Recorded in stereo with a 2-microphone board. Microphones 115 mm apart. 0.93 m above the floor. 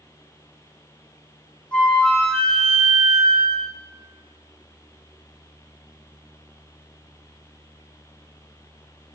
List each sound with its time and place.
1.7 s a flute: 10° left (ahead or behind), 0.7 m